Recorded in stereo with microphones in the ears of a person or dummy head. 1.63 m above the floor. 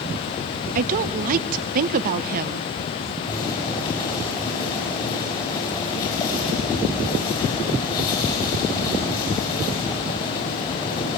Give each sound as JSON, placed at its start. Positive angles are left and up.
{"t": 0.8, "sound": "a woman speaking", "side_deg": -50, "distance_m": 0.6}
{"t": 3.3, "sound": "boiling", "side_deg": 25, "distance_m": 7.0}